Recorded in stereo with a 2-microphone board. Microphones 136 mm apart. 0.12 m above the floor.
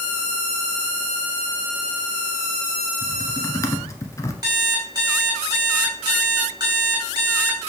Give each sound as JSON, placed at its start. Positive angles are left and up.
{"t": 3.0, "sound": "typing on a keyboard", "side_deg": 25, "distance_m": 1.2}
{"t": 4.4, "sound": "an alarm clock", "side_deg": -30, "distance_m": 3.5}